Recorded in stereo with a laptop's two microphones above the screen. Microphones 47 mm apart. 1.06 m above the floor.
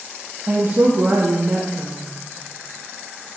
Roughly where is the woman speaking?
Right.